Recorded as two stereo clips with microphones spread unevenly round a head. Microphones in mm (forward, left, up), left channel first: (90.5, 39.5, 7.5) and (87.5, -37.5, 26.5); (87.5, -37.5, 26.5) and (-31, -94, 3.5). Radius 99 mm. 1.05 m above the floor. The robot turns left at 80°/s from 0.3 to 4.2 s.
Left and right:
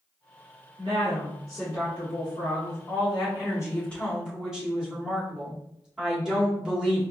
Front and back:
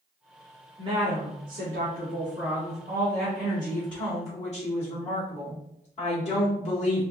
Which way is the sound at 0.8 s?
95° right.